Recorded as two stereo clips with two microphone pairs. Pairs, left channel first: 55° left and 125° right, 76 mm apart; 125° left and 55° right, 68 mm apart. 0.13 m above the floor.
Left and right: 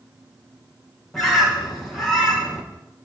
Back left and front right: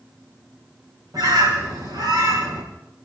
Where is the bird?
30° right, 6 m.